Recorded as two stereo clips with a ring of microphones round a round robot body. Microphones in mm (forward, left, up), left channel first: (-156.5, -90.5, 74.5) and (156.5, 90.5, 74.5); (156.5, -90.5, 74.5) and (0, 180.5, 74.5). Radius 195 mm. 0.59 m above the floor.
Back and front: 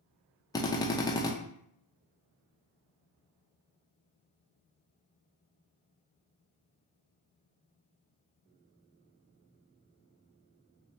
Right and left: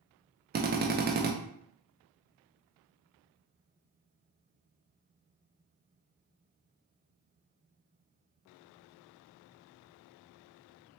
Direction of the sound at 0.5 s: 140° left.